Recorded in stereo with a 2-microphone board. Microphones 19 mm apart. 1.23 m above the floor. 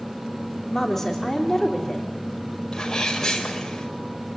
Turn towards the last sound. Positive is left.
turn(degrees=25)  # may be behind; listen again after turning